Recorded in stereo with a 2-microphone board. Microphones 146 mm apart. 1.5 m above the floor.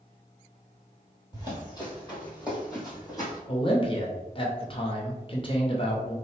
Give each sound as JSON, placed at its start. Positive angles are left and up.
{"t": 1.3, "sound": "running footsteps", "side_deg": 30, "distance_m": 1.8}
{"t": 3.5, "sound": "a man speaking", "side_deg": 40, "distance_m": 0.8}